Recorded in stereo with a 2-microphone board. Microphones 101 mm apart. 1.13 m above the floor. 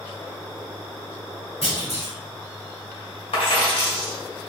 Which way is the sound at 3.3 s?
70° left (ahead or behind).